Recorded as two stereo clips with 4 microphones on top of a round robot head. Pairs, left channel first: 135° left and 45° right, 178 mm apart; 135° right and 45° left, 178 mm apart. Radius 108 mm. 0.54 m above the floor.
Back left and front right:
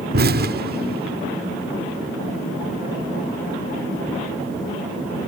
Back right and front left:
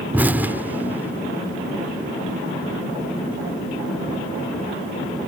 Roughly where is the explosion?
Ahead right.